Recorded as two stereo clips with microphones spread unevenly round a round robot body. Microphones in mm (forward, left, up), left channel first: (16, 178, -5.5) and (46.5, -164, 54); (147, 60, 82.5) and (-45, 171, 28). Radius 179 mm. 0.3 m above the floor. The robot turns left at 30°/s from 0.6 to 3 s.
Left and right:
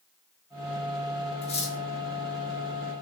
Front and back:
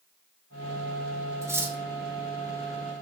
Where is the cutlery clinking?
120° left, 0.6 m; by 1.8 s 110° left, 0.6 m.